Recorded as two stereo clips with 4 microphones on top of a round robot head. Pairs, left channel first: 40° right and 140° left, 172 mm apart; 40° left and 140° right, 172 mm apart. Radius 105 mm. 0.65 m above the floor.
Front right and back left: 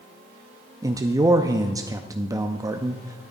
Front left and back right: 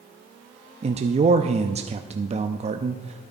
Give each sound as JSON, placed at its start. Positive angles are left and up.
{"t": 0.8, "sound": "a man speaking", "azimuth_deg": -160, "distance_m": 0.6}